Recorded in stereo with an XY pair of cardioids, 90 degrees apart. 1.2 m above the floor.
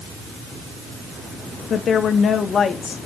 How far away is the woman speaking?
About 1.2 m.